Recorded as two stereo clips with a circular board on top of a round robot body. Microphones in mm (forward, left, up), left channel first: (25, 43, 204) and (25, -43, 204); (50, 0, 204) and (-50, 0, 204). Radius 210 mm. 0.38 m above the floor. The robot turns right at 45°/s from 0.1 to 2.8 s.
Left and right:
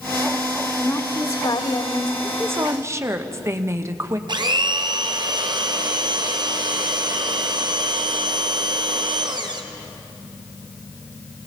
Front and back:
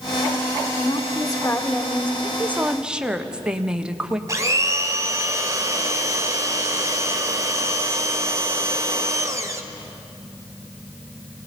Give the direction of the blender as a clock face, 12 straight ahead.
4 o'clock.